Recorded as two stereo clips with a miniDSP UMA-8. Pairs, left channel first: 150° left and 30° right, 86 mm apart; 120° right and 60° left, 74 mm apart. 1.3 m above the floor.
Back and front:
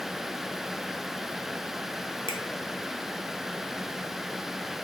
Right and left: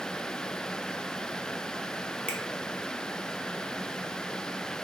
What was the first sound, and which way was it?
A finger snap, 170° left.